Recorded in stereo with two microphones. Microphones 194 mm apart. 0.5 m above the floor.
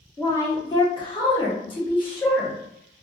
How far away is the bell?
No bell in this recording.